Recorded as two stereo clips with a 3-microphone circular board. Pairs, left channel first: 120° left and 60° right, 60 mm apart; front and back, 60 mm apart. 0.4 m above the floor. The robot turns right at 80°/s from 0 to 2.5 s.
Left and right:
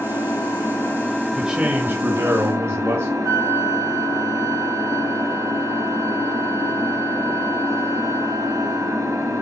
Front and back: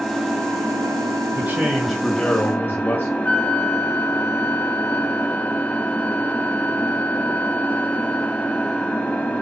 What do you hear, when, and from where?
0.0 s an engine running: 95° left, 2.0 m; by 9.4 s 65° right, 2.0 m
1.3 s a man speaking: 140° right, 1.5 m; by 3.1 s 45° right, 1.5 m
3.2 s a flute: 60° right, 1.0 m